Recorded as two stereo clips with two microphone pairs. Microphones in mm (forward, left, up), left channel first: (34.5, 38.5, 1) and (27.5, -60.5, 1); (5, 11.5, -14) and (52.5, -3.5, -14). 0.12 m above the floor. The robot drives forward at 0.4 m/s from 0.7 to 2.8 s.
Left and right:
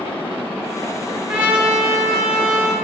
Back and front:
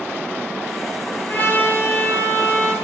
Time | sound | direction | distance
1.3 | a trumpet | 165° right | 0.8 m